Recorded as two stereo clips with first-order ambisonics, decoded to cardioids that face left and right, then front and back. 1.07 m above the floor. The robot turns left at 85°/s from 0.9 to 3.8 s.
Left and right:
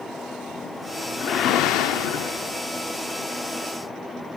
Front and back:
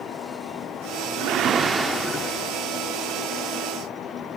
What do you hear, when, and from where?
1.2 s a whoosh: 150° left, 1.0 m; by 2.6 s 25° left, 1.0 m